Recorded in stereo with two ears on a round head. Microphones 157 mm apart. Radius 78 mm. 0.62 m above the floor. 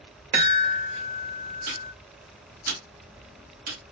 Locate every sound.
0.3 s a chime: 50° right (ahead or behind), 2.5 m
1.7 s ticking: 55° right (ahead or behind), 1.5 m